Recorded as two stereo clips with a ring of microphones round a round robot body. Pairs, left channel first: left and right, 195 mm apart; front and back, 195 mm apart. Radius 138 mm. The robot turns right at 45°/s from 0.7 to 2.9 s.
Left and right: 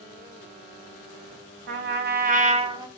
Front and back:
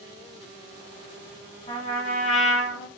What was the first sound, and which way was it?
A trumpet, 70° right.